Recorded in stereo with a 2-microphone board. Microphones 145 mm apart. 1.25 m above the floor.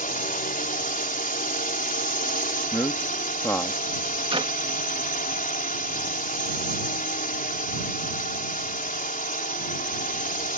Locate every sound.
0.0 s a drone: 70° left (ahead or behind)
2.7 s a man speaking: 15° left (ahead or behind)
4.3 s a clap: 40° right (ahead or behind)